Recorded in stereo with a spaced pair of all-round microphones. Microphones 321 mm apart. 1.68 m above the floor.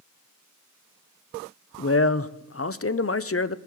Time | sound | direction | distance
1.8 | a man speaking | 45° left (ahead or behind) | 0.6 m